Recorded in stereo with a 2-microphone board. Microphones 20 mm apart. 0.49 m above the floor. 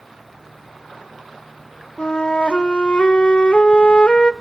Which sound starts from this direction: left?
A flute, at 2.0 s.